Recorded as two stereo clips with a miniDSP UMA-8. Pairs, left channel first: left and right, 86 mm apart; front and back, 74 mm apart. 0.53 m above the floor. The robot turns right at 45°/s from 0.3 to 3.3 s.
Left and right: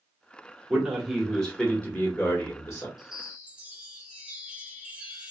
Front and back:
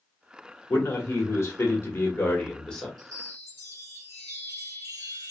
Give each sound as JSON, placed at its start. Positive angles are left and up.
{"t": 0.7, "sound": "a man speaking", "azimuth_deg": -20, "distance_m": 1.1}
{"t": 3.0, "sound": "a chime", "azimuth_deg": -175, "distance_m": 0.9}